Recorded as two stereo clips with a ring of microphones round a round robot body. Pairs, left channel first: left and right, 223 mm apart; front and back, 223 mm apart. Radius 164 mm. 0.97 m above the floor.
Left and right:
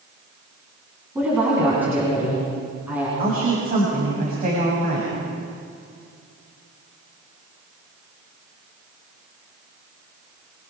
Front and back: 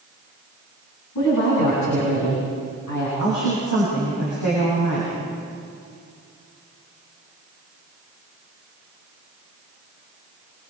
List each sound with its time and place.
1.1 s a woman speaking: 10° right, 9 m
3.2 s a woman speaking: 40° right, 7.5 m